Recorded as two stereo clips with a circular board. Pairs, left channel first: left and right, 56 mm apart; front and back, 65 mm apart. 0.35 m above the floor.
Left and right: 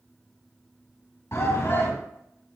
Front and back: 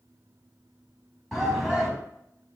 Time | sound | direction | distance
1.3 | a shout | 85° left | 3 m